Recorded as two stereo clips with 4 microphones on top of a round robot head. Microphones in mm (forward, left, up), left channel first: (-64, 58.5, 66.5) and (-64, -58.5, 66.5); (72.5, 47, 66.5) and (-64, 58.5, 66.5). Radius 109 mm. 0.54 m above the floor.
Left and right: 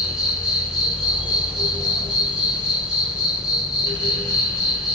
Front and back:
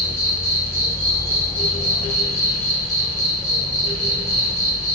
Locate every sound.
0.0 s an insect: 10° right, 1.5 m